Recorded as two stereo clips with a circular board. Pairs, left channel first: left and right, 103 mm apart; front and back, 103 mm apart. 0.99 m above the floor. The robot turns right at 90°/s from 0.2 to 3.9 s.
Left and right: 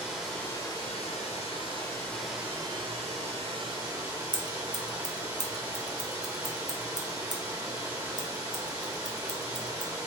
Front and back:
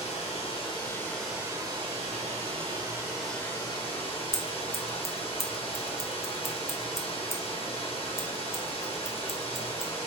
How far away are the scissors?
About 0.7 m.